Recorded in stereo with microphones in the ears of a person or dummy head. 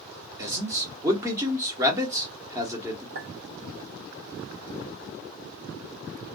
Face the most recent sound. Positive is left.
turn(degrees=-40)  # may be behind; listen again after turning